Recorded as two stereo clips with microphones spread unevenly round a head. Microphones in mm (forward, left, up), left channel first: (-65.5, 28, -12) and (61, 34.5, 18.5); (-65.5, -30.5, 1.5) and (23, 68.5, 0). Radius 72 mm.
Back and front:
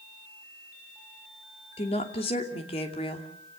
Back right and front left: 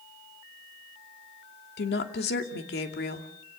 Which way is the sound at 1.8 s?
120° right.